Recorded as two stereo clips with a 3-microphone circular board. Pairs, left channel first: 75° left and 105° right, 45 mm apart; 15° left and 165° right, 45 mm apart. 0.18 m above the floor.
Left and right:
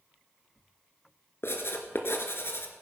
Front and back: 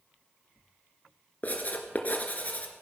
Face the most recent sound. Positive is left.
turn(degrees=65)